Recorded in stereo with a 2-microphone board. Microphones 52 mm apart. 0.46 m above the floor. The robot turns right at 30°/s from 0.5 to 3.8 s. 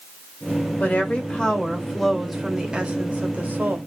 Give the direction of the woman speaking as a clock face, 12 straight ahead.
7 o'clock.